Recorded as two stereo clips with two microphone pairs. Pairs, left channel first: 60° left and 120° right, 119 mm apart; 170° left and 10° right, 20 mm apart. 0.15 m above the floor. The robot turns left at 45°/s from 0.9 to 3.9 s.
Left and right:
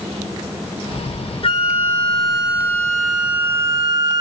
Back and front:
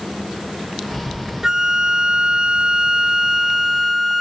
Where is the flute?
45° left, 1.9 m; by 4.2 s 70° right, 1.9 m.